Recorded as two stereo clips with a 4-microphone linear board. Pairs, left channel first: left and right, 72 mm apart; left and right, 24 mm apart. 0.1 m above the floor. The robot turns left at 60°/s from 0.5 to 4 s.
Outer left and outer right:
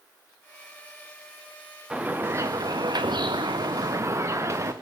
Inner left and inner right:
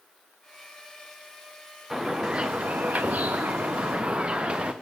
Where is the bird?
15° right, 2 m; by 4.7 s 140° right, 2 m.